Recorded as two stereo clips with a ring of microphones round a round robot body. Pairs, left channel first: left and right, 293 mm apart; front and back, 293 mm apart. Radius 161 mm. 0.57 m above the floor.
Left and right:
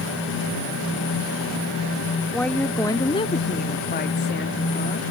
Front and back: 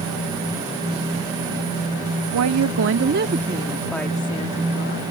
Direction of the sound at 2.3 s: 175° left.